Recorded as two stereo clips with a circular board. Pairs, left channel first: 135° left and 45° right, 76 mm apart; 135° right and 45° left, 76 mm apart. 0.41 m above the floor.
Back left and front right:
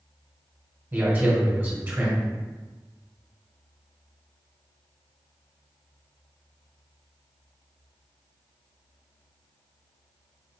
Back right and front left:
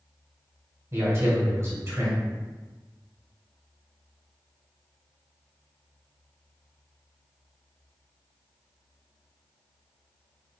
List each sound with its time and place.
0.9 s a man speaking: 10° left, 1.7 m